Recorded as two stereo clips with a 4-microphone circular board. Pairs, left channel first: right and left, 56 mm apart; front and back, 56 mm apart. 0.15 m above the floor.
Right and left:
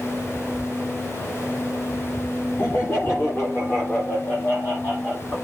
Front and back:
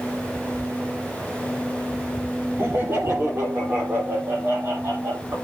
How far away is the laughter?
About 3.5 m.